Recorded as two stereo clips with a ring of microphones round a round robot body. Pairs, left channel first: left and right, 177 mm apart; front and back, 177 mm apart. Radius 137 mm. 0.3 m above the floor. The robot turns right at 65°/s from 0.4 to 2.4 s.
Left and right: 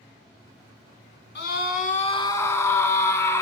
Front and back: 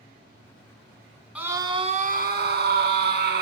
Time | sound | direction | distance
1.4 | a scream | 100° left | 3 m